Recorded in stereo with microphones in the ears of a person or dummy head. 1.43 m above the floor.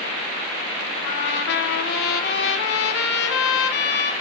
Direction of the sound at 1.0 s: 70° left (ahead or behind).